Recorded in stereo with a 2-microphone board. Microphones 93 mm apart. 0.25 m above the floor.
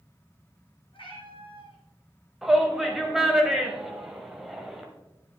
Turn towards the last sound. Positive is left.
turn(degrees=-5)  # may be behind; listen again after turning